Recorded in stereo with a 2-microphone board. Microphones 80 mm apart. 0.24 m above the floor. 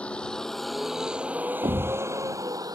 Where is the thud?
75° right (ahead or behind).